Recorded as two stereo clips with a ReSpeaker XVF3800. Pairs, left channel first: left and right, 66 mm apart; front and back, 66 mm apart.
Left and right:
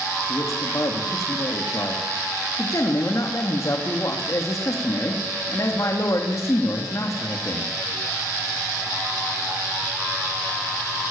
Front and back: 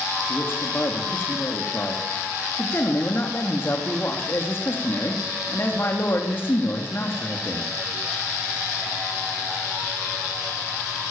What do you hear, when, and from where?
0.3 s a man speaking: 50° left, 3 m